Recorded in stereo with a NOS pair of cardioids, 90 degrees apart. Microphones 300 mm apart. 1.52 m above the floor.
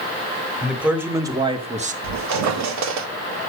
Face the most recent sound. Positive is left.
turn(degrees=-65)